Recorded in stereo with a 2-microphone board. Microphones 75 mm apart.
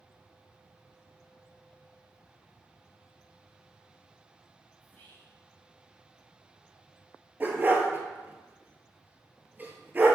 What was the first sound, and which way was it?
Whispering, 25° left (ahead or behind).